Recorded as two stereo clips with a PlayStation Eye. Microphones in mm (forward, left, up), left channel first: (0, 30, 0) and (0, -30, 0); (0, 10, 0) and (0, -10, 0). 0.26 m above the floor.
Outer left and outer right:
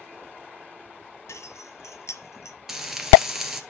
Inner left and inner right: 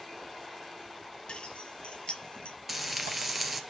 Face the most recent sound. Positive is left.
turn(degrees=-5)  # may be behind; listen again after turning